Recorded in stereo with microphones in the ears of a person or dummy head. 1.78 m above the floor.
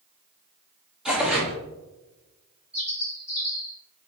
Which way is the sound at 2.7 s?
10° right (ahead or behind).